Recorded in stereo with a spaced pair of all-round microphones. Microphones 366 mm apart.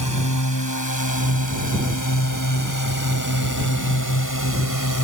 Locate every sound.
0.0 s a drone: 55° left (ahead or behind); by 5.0 s 60° left (ahead or behind)